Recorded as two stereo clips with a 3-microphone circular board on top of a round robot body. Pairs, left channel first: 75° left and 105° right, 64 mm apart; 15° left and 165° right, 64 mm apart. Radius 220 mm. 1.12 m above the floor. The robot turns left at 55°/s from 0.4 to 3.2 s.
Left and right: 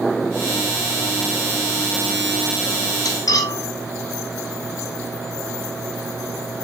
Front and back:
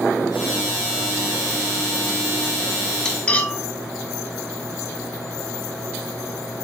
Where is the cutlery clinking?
95° left, 1.0 m; by 3.6 s 90° left, 1.0 m.